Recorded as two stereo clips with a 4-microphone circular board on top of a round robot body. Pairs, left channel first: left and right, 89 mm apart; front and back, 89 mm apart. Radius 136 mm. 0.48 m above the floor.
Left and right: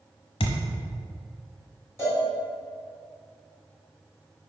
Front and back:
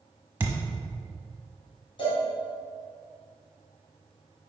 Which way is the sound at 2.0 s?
30° left.